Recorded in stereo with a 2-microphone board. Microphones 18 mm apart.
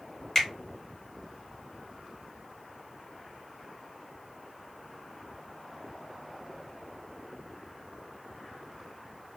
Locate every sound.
0.3 s a finger snap: 20° left (ahead or behind), 1.2 m